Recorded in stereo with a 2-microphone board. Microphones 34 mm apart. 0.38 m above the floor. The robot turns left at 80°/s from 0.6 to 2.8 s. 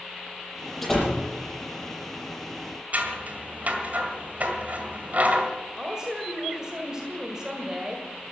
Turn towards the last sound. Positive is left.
turn(degrees=-20)  # may be behind; listen again after turning